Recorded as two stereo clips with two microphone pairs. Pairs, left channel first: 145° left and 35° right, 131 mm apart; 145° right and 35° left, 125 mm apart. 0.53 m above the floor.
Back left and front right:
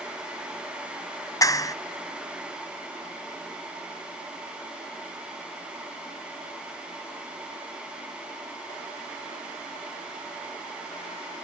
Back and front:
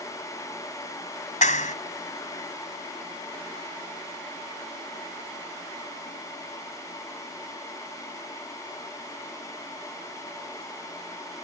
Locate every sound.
1.4 s a clap: 150° right